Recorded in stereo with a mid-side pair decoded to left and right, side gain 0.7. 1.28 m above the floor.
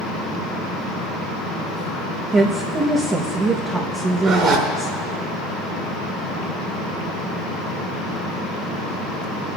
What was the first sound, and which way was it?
A woman speaking, 25° right.